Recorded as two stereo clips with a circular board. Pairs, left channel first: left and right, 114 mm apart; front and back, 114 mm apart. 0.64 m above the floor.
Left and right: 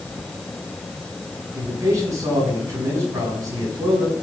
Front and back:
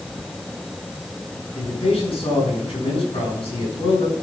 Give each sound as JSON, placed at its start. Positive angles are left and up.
{"t": 1.5, "sound": "a man speaking", "azimuth_deg": -30, "distance_m": 7.0}